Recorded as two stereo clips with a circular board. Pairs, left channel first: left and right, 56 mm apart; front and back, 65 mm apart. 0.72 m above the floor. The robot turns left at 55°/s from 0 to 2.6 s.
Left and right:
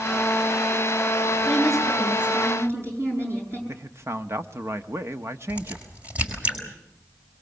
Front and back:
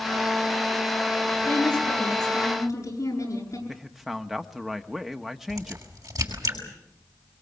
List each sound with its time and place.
1.4 s a woman speaking: 20° left, 9.5 m; by 3.6 s 45° right, 9.5 m
3.7 s a man speaking: 95° right, 1.1 m
5.5 s a crack: 155° right, 6 m